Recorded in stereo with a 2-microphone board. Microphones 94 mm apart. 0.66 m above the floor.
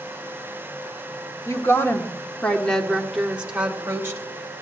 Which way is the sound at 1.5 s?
35° left (ahead or behind).